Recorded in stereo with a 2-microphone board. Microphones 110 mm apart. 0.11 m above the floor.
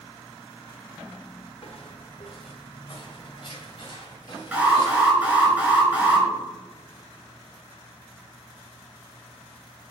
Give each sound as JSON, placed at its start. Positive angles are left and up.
{"t": 1.6, "sound": "footsteps", "side_deg": 55, "distance_m": 1.4}
{"t": 4.5, "sound": "an alarm", "side_deg": -15, "distance_m": 2.0}